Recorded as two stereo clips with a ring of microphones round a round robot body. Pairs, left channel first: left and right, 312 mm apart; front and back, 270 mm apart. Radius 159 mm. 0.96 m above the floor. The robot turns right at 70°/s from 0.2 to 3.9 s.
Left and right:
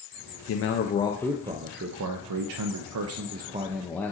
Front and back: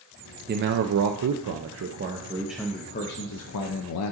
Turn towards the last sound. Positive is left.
turn(degrees=5)